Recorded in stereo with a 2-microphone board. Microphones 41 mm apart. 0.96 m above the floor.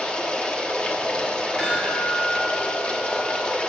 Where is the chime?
20° left (ahead or behind), 4.5 m.